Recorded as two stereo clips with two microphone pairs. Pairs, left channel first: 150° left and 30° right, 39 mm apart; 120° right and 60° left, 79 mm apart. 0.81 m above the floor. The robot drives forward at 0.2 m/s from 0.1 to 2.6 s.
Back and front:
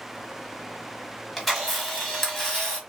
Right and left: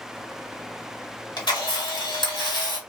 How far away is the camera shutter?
About 1.2 m.